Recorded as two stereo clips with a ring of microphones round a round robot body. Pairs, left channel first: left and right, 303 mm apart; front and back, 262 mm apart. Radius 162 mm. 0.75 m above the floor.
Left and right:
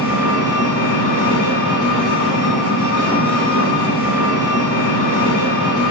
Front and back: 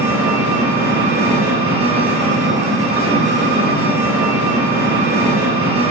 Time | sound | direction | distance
0.0 | an engine running | 120° left | 1.2 m